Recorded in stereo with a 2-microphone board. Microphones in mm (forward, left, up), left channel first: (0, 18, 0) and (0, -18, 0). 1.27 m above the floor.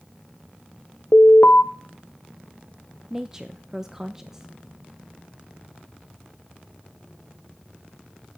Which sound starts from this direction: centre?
A woman speaking, at 3.1 s.